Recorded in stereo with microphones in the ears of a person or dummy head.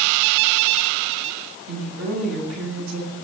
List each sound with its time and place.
1.7 s a woman speaking: 75° right (ahead or behind), 8.5 m